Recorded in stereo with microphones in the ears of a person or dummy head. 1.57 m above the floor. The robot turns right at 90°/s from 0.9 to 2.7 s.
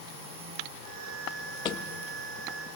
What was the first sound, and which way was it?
A thud, 30° left (ahead or behind).